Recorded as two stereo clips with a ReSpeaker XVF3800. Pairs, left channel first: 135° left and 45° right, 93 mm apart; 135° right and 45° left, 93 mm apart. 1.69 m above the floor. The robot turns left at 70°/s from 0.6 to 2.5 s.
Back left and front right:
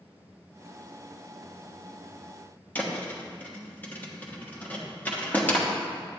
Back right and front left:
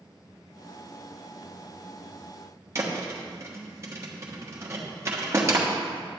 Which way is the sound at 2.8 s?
80° left.